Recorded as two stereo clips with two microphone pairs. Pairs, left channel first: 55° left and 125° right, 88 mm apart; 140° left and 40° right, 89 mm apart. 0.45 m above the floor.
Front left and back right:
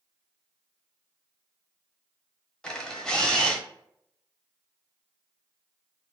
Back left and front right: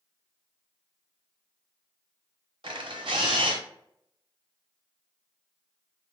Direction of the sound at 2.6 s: 25° right.